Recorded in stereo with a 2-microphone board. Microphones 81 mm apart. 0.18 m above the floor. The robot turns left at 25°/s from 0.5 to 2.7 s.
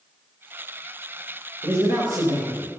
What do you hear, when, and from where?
1.6 s a man speaking: 35° right (ahead or behind), 3 m; by 2.7 s 55° right (ahead or behind), 3 m